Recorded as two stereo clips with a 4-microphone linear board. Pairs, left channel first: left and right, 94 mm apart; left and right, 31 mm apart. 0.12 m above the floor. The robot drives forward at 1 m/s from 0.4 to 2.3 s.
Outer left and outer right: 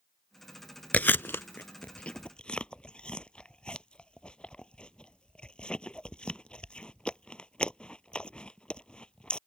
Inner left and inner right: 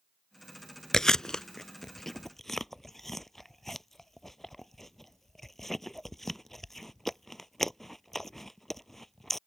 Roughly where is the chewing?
Centre.